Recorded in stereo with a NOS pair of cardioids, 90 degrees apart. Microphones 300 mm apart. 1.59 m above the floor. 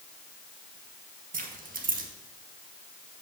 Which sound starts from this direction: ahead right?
Keys jangling, at 1.3 s.